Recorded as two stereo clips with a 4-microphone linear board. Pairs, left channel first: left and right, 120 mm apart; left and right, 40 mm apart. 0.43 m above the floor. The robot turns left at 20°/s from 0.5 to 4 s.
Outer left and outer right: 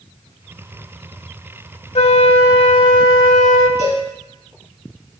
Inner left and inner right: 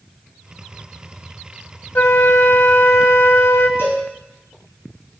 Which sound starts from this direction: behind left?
A flute, at 1.9 s.